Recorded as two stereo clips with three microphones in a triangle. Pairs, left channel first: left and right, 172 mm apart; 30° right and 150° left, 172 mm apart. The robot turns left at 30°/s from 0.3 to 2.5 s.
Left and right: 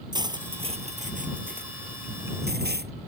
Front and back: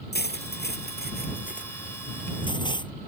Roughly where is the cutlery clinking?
Ahead right.